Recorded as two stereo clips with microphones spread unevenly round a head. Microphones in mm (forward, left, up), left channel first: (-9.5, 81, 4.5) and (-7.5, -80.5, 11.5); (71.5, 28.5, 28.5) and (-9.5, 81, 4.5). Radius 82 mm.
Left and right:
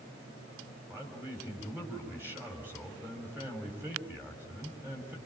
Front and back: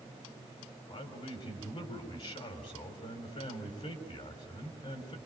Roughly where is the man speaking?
Ahead.